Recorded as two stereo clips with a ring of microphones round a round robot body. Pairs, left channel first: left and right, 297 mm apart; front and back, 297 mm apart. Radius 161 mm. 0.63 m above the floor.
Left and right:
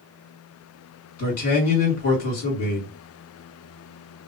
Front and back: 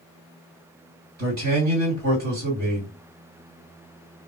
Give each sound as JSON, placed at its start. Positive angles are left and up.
{"t": 1.2, "sound": "a man speaking", "azimuth_deg": 120, "distance_m": 1.9}